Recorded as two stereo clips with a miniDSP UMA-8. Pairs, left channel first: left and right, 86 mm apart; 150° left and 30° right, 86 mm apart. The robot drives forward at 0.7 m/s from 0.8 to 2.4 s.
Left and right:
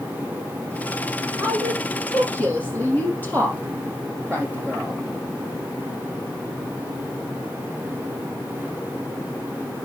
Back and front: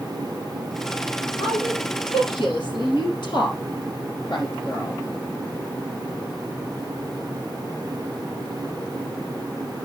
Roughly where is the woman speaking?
Behind left.